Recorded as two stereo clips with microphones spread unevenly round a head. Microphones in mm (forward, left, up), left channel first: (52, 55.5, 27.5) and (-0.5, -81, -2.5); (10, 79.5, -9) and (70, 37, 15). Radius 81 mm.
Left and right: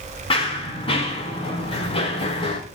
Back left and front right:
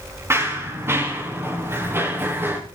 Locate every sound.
0.3 s running footsteps: 15° left, 8.5 m; by 2.6 s 20° left, 6.5 m